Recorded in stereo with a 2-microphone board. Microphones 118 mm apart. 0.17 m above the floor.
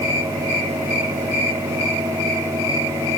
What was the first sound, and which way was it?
Only background noise.